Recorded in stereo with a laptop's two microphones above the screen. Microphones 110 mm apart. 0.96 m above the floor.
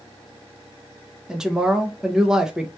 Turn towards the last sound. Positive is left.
turn(degrees=-5)  # may be behind; listen again after turning